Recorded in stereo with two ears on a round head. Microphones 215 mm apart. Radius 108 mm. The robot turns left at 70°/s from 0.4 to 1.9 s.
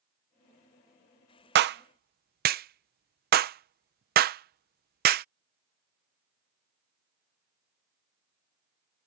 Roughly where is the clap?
Right.